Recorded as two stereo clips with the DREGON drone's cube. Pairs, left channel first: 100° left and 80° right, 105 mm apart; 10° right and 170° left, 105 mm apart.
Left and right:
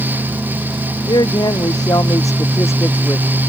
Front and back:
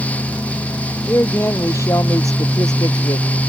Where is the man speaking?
60° left; by 3.4 s 30° left.